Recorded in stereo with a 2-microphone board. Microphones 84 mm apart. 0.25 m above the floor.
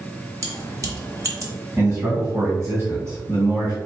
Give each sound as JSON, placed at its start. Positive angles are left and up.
{"t": 0.4, "sound": "keys jangling", "side_deg": -40, "distance_m": 1.2}
{"t": 1.8, "sound": "a man speaking", "side_deg": -35, "distance_m": 2.0}